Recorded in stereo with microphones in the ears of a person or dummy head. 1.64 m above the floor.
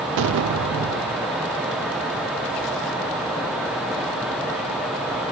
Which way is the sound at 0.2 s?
70° right (ahead or behind).